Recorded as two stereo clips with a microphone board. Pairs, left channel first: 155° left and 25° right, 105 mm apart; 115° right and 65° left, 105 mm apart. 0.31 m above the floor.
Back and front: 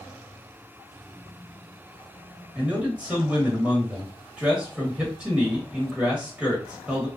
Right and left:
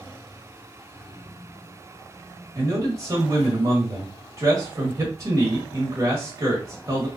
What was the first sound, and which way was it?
A man speaking, 50° left.